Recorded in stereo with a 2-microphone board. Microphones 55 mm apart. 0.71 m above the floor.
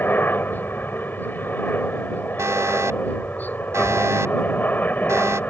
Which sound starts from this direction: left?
A helicopter, at 0.0 s.